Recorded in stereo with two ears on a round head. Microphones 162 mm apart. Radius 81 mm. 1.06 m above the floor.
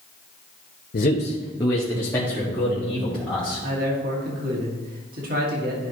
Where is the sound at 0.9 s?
55° left (ahead or behind), 0.8 m; by 3.6 s centre (ahead or behind), 3 m.